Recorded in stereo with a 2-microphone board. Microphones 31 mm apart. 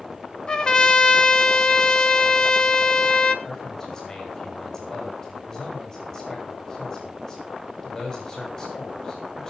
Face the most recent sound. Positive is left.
turn(degrees=25)  # may be behind; listen again after turning